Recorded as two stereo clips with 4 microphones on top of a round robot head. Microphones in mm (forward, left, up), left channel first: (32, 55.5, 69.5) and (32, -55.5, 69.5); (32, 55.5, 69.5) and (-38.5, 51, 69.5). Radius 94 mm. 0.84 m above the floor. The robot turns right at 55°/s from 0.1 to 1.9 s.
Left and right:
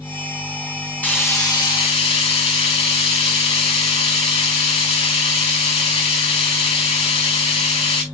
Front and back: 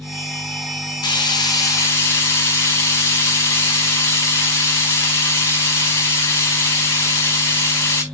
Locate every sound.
1.0 s frying: 10° left, 5 m; by 8.0 s 60° left, 5 m